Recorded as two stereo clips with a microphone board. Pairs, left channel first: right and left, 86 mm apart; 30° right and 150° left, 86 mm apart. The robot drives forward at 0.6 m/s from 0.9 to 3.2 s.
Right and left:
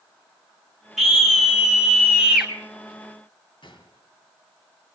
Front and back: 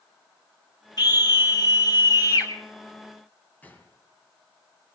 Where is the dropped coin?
I don't hear a dropped coin.